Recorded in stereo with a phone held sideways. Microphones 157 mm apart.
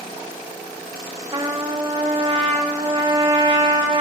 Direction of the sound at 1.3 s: 35° right (ahead or behind).